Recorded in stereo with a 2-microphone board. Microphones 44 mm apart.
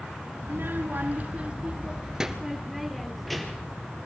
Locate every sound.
0.4 s a child speaking: 60° right (ahead or behind), 1.5 m; by 3.8 s 5° left (ahead or behind), 3 m